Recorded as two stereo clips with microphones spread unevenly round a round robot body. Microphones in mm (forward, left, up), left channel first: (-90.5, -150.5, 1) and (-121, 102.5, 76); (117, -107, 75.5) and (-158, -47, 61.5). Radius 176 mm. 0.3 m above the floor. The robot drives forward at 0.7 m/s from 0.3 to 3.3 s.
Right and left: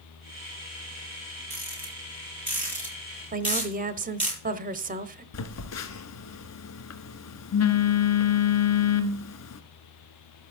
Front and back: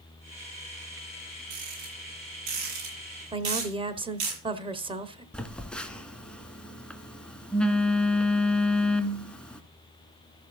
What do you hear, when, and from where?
1.5 s a rattle: 175° right, 6 m; by 4.3 s straight behind, 7.5 m
3.3 s a woman speaking: 150° left, 1.0 m
5.3 s a phone buzzing: 100° right, 1.3 m